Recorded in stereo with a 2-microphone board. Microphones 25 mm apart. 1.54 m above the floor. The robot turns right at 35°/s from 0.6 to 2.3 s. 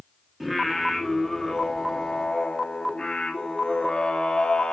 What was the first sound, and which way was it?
Singing, 5° right.